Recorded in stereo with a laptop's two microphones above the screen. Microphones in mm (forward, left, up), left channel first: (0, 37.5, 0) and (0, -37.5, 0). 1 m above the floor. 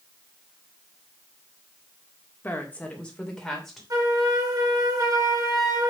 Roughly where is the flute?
Right.